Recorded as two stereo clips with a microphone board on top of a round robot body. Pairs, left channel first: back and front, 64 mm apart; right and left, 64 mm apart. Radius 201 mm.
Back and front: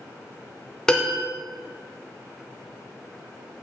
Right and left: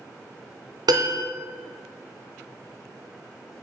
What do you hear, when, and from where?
0.9 s a piano: 100° left, 0.9 m